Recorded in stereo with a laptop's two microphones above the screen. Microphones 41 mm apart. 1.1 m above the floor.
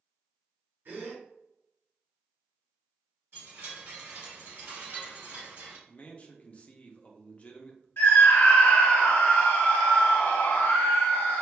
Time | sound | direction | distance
0.8 | a gasp | 65° right (ahead or behind) | 1.9 m
3.3 | a chime | 70° right (ahead or behind) | 1.8 m
5.9 | a man speaking | 30° left (ahead or behind) | 0.6 m
8.0 | a scream | 65° left (ahead or behind) | 0.8 m